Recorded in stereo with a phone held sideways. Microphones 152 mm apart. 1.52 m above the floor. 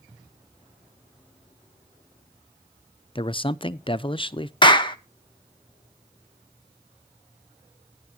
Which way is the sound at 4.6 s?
30° left (ahead or behind).